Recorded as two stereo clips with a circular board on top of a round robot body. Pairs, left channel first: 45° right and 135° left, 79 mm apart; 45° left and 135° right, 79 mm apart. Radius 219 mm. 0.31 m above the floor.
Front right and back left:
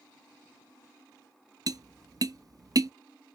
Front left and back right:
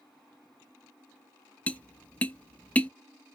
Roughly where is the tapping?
Behind left.